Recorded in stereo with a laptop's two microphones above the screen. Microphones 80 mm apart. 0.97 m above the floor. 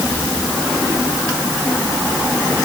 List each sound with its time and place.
Only background noise.